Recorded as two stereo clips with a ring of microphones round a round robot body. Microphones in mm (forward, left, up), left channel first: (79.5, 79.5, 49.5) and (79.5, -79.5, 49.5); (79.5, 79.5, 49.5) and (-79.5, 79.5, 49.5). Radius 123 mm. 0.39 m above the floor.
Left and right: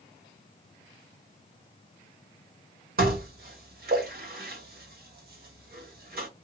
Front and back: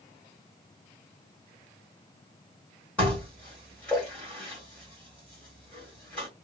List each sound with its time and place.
3.0 s dishes clattering: 80° right, 1.3 m